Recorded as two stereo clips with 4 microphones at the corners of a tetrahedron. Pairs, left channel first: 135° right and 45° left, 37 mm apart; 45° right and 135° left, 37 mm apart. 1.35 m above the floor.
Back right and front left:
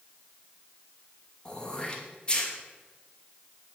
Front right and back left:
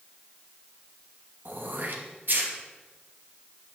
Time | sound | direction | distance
1.4 | throat clearing | 160° left | 2.5 m